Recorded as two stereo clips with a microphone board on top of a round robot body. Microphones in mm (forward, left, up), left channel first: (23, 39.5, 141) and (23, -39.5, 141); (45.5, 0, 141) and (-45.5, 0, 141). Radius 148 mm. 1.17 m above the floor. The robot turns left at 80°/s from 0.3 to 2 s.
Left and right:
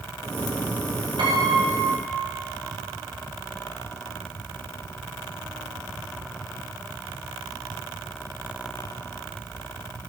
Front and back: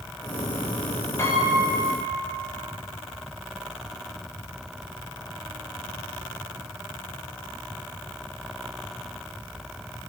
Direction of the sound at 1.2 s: 65° right.